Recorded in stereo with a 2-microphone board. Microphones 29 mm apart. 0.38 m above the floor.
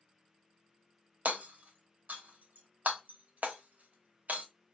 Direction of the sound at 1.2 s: 65° right (ahead or behind).